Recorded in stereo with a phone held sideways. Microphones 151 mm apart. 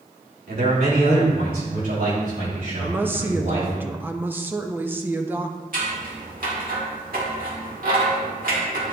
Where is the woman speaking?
15° right (ahead or behind), 0.6 m.